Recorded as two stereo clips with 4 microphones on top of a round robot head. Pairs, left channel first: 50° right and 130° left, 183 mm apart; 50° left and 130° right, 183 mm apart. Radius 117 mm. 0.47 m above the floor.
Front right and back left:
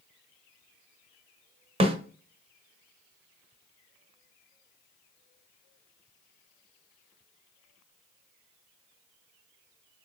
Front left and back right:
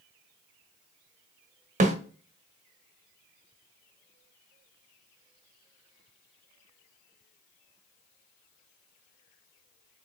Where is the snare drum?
175° right, 0.8 m.